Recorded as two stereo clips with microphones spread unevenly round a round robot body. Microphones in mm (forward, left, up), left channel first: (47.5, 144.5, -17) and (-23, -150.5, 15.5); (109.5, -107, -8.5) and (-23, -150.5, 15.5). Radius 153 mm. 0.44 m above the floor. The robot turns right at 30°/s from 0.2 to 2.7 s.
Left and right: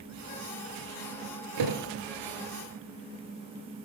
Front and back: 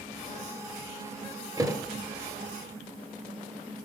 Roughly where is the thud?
Right.